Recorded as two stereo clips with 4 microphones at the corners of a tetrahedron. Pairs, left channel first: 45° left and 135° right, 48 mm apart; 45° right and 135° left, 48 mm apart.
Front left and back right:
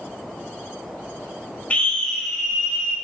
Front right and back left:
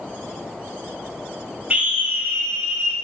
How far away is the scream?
About 1.4 m.